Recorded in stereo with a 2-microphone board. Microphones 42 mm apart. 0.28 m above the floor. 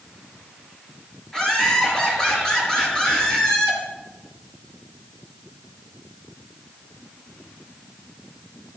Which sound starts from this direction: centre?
Laughter, at 1.3 s.